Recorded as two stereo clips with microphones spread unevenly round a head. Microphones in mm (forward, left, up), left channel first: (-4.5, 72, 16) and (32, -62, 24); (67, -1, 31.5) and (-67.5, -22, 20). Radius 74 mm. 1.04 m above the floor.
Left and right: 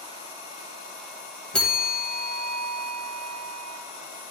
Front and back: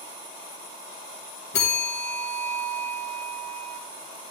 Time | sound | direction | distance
1.5 | a bell | 20° left | 1.7 m